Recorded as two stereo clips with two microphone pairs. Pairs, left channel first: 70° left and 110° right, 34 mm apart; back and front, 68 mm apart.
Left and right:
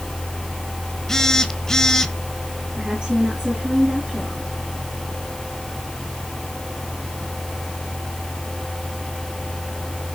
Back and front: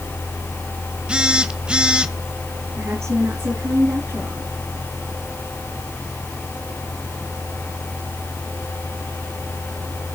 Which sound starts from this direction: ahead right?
A woman speaking, at 2.8 s.